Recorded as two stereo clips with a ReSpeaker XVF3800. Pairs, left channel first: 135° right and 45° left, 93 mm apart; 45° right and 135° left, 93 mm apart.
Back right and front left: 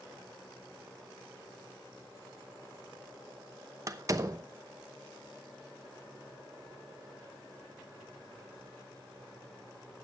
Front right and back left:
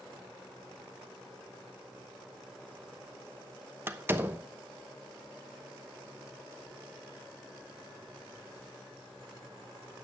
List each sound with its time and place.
3.9 s a door slam: 80° left, 0.9 m